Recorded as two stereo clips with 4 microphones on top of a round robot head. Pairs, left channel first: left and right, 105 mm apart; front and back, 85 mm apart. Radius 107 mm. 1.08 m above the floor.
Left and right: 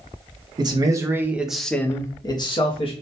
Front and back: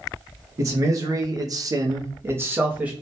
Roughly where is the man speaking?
Behind right.